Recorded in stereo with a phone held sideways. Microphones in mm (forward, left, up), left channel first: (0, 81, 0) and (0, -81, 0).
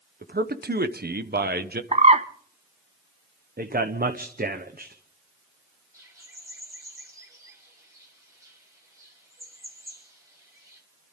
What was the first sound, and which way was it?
A man speaking, 75° right (ahead or behind).